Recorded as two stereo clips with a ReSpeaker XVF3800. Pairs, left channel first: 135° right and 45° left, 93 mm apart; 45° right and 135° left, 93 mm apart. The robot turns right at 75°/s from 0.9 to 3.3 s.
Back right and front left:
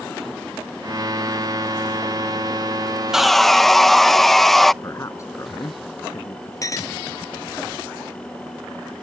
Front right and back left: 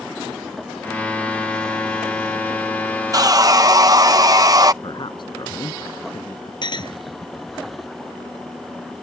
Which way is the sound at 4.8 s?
80° right.